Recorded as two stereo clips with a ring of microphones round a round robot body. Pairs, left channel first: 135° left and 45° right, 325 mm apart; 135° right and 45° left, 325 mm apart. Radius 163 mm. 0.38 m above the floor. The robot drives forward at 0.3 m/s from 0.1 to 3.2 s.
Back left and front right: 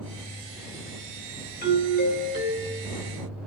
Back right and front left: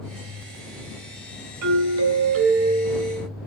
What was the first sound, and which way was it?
A doorbell, 75° left.